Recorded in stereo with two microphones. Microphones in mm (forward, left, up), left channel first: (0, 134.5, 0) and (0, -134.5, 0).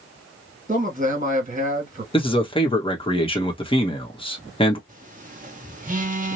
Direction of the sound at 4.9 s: 30° right (ahead or behind).